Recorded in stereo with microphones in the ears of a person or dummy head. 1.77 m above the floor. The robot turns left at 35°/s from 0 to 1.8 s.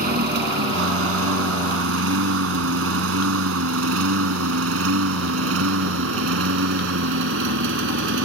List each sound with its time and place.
0.0 s a lawn mower: 50° right (ahead or behind); by 8.2 s 70° right (ahead or behind)